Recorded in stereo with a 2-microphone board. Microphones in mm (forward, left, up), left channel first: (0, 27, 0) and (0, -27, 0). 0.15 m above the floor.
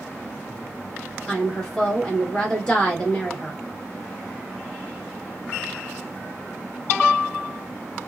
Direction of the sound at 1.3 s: 15° left (ahead or behind).